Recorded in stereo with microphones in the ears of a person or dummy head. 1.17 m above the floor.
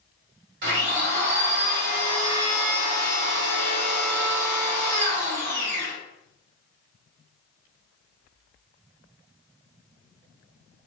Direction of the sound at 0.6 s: 60° right (ahead or behind).